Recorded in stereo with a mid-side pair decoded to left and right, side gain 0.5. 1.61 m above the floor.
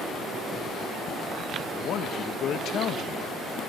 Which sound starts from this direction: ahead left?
A man speaking, at 1.7 s.